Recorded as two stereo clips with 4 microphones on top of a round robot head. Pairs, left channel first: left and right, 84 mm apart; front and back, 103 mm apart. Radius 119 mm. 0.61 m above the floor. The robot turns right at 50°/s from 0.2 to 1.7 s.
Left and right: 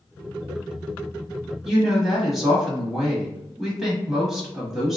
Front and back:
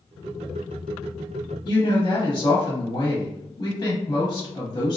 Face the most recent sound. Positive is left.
turn(degrees=0)